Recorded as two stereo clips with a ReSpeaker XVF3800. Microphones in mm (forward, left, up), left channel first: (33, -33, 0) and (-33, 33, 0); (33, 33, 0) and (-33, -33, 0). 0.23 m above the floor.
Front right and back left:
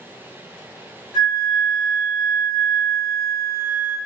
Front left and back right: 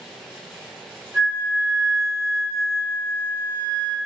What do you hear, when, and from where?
1.1 s a flute: 145° right, 1.7 m